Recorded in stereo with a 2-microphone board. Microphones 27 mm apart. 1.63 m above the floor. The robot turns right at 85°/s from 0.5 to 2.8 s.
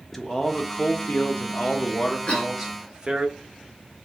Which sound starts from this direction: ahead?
A man speaking, at 0.1 s.